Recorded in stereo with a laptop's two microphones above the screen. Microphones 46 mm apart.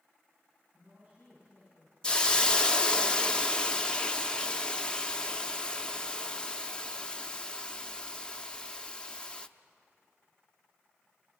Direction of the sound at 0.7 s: 30° right (ahead or behind).